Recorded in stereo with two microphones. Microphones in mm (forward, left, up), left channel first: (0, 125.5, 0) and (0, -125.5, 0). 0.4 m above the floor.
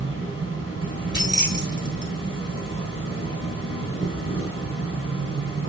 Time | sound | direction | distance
0.0 | an insect | 55° right (ahead or behind) | 5.5 m
1.1 | keys jangling | 45° left (ahead or behind) | 1.9 m